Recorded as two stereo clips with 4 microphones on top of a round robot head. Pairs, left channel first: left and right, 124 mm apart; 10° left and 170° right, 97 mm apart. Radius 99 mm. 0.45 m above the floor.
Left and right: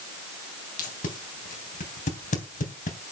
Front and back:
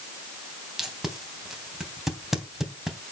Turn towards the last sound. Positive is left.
turn(degrees=105)